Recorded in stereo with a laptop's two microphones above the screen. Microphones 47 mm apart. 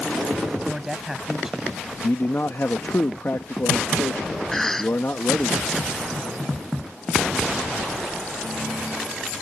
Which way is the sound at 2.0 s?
55° left (ahead or behind).